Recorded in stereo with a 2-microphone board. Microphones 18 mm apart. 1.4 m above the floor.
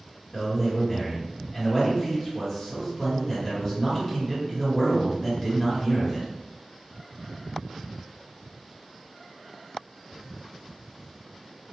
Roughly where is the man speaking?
Centre.